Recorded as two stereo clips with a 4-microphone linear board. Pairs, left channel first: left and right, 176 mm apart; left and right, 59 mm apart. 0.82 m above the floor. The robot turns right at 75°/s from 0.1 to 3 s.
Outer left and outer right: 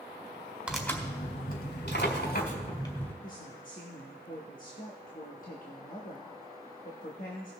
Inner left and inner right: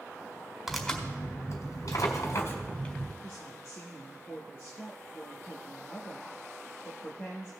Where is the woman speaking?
50° left (ahead or behind), 1.3 m.